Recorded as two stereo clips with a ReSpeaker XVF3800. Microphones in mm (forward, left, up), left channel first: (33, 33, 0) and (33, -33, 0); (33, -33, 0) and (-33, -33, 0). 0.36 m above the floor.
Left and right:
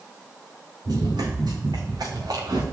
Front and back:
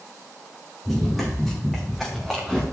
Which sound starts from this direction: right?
Running footsteps, at 0.8 s.